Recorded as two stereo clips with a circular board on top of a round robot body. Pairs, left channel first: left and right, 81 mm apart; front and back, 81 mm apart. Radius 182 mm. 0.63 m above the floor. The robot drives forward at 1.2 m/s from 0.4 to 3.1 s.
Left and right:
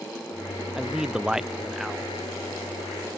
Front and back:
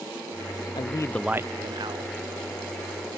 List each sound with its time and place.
0.8 s a man speaking: 5° right, 0.8 m; by 2.2 s 175° right, 1.2 m